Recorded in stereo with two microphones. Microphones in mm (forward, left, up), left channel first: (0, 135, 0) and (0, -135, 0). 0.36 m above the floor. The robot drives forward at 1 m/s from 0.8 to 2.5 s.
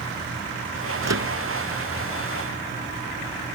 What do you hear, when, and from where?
1.0 s a microwave: 80° right; by 1.3 s 75° right (ahead or behind)